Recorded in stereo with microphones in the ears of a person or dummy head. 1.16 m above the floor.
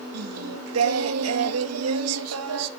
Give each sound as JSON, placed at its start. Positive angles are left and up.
{"t": 0.1, "sound": "singing", "side_deg": -85, "distance_m": 1.5}